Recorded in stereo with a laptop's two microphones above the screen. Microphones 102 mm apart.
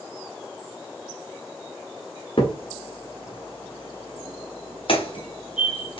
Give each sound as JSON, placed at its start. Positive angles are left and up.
{"t": 2.4, "sound": "a crack", "side_deg": 60, "distance_m": 1.7}